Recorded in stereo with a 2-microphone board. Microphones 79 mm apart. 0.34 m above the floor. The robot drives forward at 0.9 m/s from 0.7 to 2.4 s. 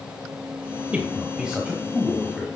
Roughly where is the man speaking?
Centre.